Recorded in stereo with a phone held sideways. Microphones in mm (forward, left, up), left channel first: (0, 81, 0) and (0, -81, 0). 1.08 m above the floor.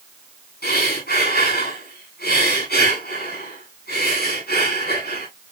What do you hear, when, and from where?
0.6 s breathing: 85° left, 8 m